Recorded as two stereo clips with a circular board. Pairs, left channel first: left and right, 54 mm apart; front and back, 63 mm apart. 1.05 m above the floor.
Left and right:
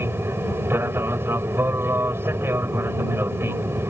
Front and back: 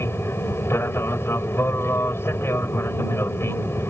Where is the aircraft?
50° right.